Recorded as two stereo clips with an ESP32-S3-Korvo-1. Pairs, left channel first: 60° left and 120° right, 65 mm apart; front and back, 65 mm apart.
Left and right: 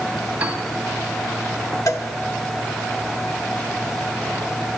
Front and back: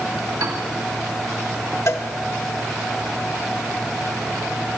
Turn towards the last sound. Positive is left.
turn(degrees=35)